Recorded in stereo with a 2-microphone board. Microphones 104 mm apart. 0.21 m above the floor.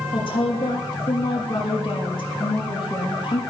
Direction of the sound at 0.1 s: 55° left (ahead or behind).